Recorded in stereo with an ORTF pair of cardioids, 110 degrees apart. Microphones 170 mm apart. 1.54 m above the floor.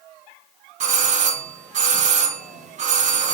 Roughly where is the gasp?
No gasp in this recording.